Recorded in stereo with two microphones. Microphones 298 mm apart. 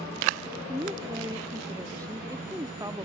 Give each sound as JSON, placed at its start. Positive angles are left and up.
{"t": 0.7, "sound": "a woman speaking", "side_deg": -10}